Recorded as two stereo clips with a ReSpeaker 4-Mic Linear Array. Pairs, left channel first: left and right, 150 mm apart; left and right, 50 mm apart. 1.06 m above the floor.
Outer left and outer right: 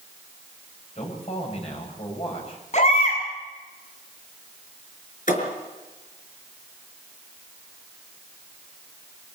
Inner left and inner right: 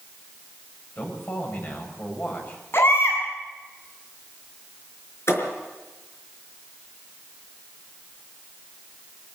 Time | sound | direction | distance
0.9 | a man speaking | 45° left (ahead or behind) | 7 m
2.7 | a baby crying | 50° left (ahead or behind) | 7 m
5.3 | a thud | 60° left (ahead or behind) | 5 m